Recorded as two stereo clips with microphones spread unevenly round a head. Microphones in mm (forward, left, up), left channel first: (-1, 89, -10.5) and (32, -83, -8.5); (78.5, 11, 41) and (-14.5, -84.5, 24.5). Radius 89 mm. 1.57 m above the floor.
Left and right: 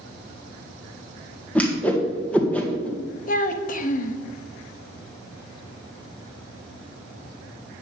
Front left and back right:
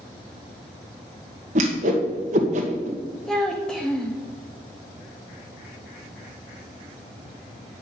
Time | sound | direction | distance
1.6 | a whoosh | 175° right | 1.8 m
3.3 | a child speaking | 125° left | 1.2 m